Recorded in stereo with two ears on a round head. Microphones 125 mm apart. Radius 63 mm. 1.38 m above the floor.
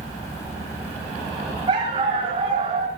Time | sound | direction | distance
1.7 | a dog barking | 35° right (ahead or behind) | 8 m